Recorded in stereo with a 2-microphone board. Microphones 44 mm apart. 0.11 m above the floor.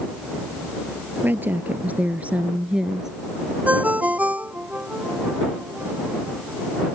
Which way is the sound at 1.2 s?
50° right (ahead or behind).